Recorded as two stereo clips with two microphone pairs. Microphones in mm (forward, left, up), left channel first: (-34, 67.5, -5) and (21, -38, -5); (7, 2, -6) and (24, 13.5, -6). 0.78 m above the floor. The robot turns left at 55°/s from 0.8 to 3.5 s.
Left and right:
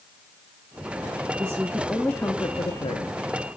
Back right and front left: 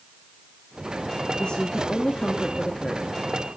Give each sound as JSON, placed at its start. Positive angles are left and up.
{"t": 1.4, "sound": "a woman speaking", "azimuth_deg": -125, "distance_m": 0.8}